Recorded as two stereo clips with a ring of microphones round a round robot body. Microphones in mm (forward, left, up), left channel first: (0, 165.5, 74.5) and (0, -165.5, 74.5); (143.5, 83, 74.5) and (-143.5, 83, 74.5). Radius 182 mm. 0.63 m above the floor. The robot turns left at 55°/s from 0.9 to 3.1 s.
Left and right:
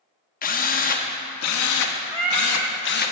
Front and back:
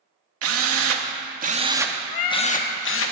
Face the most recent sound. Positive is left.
turn(degrees=-65)